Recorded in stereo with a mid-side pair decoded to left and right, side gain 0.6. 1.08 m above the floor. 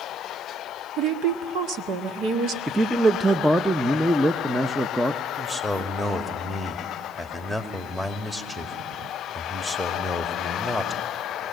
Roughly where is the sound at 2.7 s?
Ahead.